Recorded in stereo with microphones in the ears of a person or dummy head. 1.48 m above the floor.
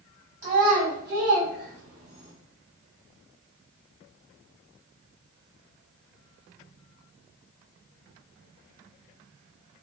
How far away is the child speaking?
About 1.0 m.